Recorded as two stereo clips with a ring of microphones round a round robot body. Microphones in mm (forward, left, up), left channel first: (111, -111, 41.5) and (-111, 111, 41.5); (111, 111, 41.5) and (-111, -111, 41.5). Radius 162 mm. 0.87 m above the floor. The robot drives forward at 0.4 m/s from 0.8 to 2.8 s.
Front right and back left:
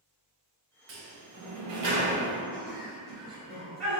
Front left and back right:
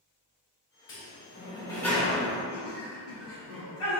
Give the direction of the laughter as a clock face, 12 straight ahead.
9 o'clock.